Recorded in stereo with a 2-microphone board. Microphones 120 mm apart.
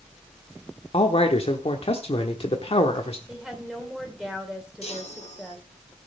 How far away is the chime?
About 3 m.